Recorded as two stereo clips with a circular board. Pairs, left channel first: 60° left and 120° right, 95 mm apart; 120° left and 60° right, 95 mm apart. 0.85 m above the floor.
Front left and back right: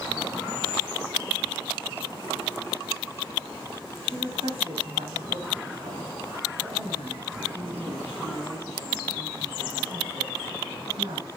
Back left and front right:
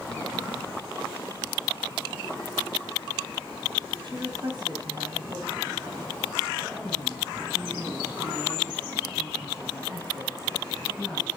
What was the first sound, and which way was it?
A woman speaking, 100° right.